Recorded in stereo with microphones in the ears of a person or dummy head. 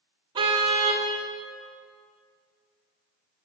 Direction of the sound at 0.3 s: 20° right (ahead or behind).